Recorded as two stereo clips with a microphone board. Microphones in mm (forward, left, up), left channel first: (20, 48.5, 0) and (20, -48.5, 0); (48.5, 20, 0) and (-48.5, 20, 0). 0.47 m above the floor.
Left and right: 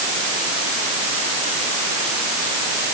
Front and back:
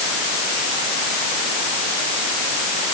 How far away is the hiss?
I don't hear a hiss.